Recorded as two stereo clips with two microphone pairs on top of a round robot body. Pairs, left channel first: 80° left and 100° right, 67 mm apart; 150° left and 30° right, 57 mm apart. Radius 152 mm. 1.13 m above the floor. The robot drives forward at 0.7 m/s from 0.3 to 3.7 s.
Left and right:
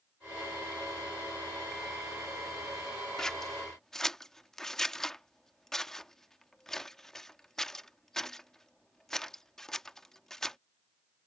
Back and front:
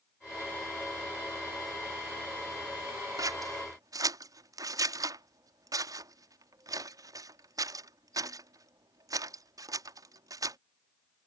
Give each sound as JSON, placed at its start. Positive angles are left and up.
{"t": 3.2, "sound": "scissors", "azimuth_deg": -5}